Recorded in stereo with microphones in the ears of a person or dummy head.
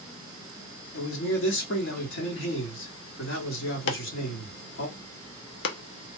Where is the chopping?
55° left (ahead or behind), 0.7 m.